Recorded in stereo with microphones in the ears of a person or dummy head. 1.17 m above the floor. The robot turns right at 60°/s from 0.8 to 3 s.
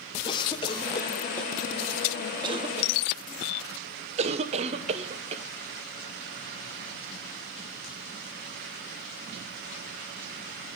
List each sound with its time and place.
0.2 s a cough: 25° left (ahead or behind), 0.7 m; by 5.4 s 30° right (ahead or behind), 0.7 m